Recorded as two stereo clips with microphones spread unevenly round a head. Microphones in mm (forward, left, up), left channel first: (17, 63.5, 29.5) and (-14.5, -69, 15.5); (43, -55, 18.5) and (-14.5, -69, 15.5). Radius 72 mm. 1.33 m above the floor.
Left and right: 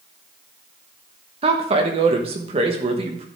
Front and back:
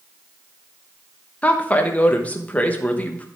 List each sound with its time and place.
1.4 s a woman speaking: 50° right, 1.2 m